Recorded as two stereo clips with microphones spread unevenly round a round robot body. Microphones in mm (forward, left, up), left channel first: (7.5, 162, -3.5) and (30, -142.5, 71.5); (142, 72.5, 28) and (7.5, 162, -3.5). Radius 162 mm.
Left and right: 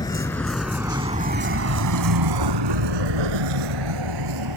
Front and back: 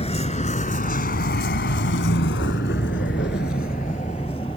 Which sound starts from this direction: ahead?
A vehicle, at 0.0 s.